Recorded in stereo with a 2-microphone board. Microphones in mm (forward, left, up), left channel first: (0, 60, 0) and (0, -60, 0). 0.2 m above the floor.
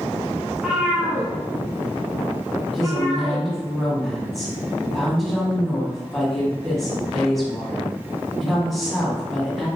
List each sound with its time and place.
0.5 s a cat meowing: centre (ahead or behind), 0.8 m; by 3.5 s 50° right (ahead or behind), 2 m
2.7 s a woman speaking: centre (ahead or behind), 1.5 m